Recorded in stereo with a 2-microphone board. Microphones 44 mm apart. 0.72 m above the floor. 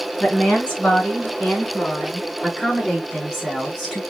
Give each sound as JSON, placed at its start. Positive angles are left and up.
{"t": 0.2, "sound": "a woman speaking", "side_deg": 20, "distance_m": 6.5}